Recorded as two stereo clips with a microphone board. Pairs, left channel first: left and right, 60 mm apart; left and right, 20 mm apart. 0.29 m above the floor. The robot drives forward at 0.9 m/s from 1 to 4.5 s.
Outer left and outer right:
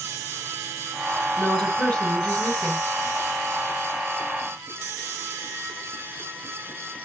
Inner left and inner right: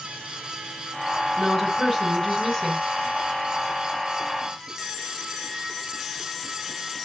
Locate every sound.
1.4 s a woman speaking: 15° left (ahead or behind), 3.5 m; by 2.9 s 25° left (ahead or behind), 2.5 m